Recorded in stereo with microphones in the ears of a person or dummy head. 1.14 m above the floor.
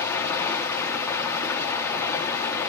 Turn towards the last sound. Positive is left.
turn(degrees=15)  # may be behind; listen again after turning